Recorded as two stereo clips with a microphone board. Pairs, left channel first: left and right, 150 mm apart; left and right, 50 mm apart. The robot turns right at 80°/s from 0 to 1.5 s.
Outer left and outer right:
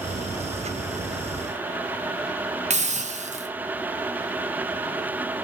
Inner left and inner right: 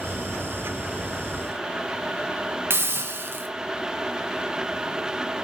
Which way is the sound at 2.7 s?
50° right (ahead or behind).